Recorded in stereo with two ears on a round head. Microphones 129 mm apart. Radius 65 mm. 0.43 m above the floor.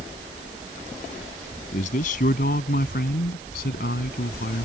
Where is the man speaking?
55° left (ahead or behind); by 4.7 s 75° left (ahead or behind).